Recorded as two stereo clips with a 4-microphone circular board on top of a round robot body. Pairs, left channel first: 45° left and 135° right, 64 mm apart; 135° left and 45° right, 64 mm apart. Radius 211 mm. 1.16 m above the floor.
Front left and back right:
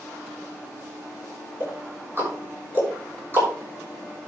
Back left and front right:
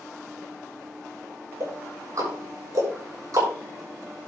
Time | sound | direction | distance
1.6 | ticking | 80° right | 6 m